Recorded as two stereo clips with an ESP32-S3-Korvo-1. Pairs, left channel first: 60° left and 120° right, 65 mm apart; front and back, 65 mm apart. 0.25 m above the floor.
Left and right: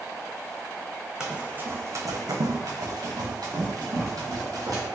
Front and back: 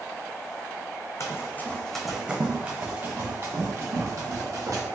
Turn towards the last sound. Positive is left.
turn(degrees=-150)